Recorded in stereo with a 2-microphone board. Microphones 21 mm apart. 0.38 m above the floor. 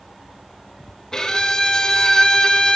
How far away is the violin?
About 1.5 m.